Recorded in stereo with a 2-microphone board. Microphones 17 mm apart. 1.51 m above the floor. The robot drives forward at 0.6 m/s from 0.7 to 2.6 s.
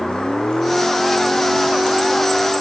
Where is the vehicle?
55° left (ahead or behind); by 2.6 s 50° left (ahead or behind).